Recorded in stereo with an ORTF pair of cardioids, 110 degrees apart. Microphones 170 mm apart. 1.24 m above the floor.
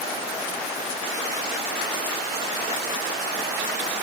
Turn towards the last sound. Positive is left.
No sound to turn to.